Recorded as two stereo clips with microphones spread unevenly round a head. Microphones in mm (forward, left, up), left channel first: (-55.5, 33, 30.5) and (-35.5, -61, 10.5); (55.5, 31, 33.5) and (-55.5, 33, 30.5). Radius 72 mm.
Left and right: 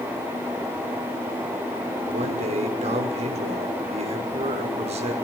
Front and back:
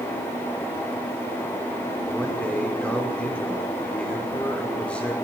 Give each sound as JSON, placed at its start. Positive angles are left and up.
{"t": 2.1, "sound": "a man speaking", "azimuth_deg": -85, "distance_m": 6.0}